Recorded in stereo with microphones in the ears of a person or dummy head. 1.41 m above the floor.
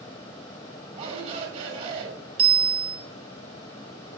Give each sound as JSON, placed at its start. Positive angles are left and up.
{"t": 0.9, "sound": "a shout", "side_deg": -40, "distance_m": 6.5}
{"t": 2.4, "sound": "a bicycle bell", "side_deg": -35, "distance_m": 3.5}